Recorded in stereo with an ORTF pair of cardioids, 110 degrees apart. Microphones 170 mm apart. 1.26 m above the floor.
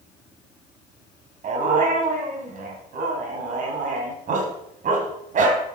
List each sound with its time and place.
1.4 s a dog barking: 50° right, 3.5 m